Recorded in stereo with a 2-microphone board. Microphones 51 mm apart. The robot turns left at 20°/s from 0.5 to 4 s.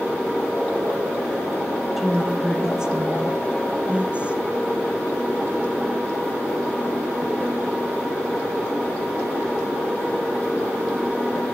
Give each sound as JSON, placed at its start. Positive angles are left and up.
{"t": 2.0, "sound": "a woman speaking", "azimuth_deg": -10, "distance_m": 1.6}